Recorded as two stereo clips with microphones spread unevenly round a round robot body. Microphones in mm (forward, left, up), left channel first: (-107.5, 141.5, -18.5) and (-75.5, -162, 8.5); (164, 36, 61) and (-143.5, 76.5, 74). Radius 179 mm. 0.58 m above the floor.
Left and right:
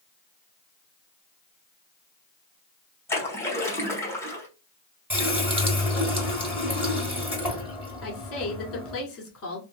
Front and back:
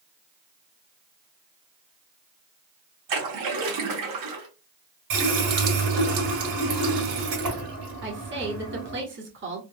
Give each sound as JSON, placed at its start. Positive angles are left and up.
{"t": 3.1, "sound": "a splash", "azimuth_deg": 175, "distance_m": 1.4}
{"t": 5.1, "sound": "a running tap", "azimuth_deg": -170, "distance_m": 2.0}
{"t": 8.0, "sound": "a woman speaking", "azimuth_deg": 125, "distance_m": 1.5}